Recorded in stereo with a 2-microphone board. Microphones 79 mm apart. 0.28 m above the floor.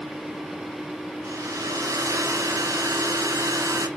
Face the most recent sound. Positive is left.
turn(degrees=-40)  # may be behind; listen again after turning